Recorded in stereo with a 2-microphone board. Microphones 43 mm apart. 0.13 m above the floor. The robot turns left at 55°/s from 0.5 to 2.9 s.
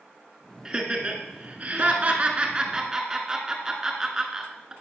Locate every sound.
0.7 s laughter: 15° right (ahead or behind), 1.3 m